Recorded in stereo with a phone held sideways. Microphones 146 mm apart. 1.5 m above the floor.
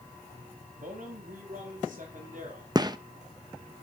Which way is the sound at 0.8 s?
65° right (ahead or behind).